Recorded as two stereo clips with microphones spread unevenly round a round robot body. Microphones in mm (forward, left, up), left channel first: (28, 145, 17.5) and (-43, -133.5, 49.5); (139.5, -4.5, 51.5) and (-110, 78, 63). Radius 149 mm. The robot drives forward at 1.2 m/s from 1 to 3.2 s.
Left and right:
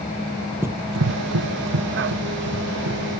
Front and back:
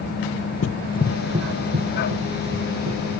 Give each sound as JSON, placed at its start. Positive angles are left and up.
{"t": 0.6, "sound": "running footsteps", "azimuth_deg": -30, "distance_m": 0.6}